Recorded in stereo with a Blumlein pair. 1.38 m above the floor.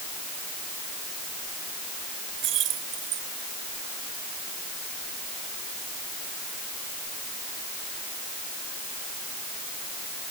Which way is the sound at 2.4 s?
35° right.